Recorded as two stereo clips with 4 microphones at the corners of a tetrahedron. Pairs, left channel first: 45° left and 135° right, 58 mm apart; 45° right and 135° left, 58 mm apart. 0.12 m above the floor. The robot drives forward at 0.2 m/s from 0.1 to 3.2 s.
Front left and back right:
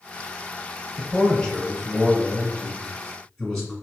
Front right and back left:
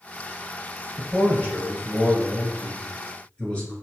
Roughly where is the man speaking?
Ahead.